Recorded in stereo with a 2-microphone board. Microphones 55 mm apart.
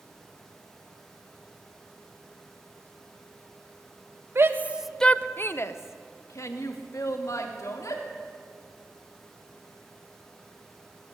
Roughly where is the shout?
Right.